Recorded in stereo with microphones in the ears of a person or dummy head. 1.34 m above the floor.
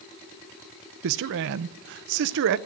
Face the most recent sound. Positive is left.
turn(degrees=-60)  # may be behind; listen again after turning